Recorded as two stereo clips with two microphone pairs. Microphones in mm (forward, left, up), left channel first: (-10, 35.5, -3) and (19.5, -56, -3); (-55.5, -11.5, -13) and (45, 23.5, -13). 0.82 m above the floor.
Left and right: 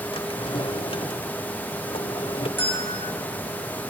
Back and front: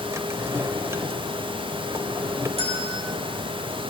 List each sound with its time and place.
0.1 s a drawer: 85° left, 1.6 m
2.6 s a bell: 40° left, 8.5 m